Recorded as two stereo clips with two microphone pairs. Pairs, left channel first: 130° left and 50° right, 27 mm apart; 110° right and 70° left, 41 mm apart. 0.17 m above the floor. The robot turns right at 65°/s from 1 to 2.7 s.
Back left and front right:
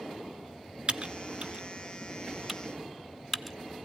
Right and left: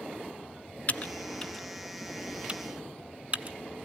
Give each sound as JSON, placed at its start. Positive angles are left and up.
{"t": 0.9, "sound": "typing on a keyboard", "azimuth_deg": -70, "distance_m": 0.6}